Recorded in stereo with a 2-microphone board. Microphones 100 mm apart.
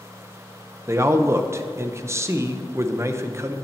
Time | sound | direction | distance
0.9 | a man speaking | 25° right (ahead or behind) | 0.8 m